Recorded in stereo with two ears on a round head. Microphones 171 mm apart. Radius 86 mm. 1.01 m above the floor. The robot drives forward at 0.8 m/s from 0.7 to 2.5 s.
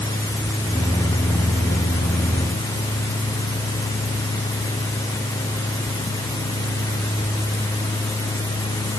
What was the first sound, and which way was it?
Only background noise.